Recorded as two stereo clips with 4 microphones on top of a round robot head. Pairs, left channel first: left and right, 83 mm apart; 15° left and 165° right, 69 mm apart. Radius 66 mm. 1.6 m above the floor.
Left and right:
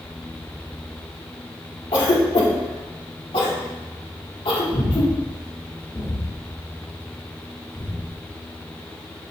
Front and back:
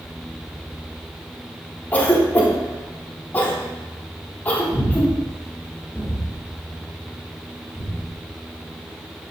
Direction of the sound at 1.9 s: 75° left.